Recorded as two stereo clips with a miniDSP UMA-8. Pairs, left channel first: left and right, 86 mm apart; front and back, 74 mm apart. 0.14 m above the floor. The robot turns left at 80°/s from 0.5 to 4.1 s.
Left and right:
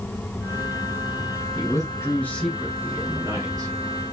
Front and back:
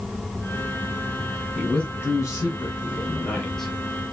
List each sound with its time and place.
1.6 s a man speaking: 90° left, 2.0 m; by 3.7 s 85° right, 2.0 m